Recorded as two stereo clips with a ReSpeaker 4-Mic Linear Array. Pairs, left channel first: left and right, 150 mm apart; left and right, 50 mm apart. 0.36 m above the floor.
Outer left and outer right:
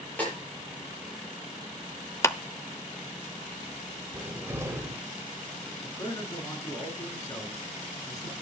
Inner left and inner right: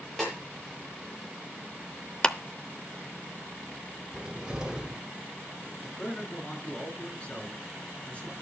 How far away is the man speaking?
About 5 m.